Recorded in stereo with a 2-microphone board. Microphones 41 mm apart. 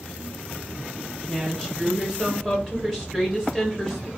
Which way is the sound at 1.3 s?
15° right (ahead or behind).